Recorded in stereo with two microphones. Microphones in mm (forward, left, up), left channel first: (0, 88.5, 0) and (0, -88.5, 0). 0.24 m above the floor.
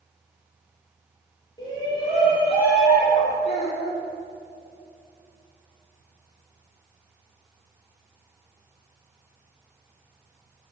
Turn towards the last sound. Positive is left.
turn(degrees=40)  # may be behind; listen again after turning